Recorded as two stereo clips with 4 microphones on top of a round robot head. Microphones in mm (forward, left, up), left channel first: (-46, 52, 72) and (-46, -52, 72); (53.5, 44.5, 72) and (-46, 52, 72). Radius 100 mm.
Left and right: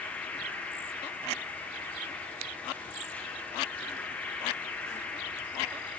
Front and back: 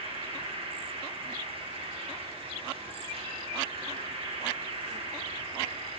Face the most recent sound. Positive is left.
turn(degrees=165)